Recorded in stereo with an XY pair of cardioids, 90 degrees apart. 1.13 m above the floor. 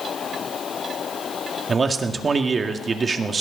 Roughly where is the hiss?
I don't hear a hiss.